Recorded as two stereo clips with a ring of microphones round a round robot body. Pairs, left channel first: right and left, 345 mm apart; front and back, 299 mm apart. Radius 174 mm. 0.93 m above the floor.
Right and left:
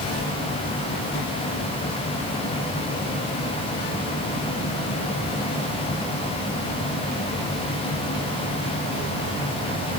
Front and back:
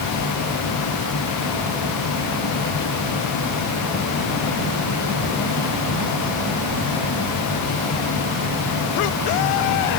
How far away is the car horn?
I don't hear a car horn.